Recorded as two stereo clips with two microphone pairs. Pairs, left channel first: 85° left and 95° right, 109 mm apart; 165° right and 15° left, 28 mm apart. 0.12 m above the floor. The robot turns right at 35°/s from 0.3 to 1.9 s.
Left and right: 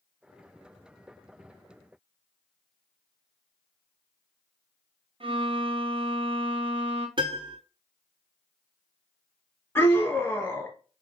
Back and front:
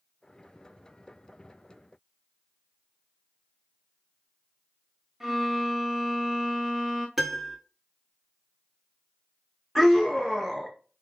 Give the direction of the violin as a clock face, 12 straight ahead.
2 o'clock.